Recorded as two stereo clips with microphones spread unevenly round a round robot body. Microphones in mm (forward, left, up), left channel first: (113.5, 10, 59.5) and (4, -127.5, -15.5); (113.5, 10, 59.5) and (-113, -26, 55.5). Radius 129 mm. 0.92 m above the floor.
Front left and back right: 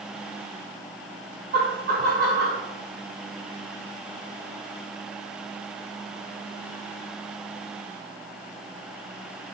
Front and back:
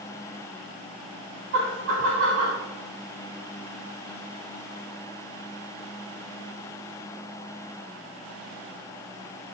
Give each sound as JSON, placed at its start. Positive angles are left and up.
{"t": 1.5, "sound": "laughter", "azimuth_deg": -140, "distance_m": 3.0}